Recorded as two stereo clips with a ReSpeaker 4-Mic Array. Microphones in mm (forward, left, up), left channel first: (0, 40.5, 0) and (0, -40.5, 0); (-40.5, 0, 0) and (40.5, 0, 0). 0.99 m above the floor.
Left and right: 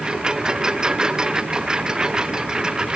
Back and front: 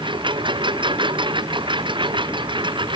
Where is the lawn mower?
10° right.